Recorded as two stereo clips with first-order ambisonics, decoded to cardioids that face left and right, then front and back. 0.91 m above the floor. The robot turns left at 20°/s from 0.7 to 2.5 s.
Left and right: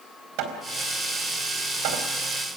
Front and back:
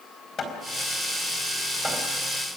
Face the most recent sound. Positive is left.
turn(degrees=-100)